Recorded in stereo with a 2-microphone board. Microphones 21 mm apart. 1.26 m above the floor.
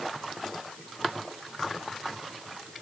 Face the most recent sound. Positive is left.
No sound to turn to.